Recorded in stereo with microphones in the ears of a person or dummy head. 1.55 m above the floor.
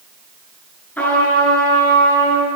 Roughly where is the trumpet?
Centre.